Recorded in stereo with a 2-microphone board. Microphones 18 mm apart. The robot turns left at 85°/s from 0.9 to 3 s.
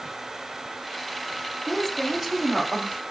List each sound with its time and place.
1.7 s a woman speaking: 25° left, 2.5 m; by 3.0 s 90° right, 2.5 m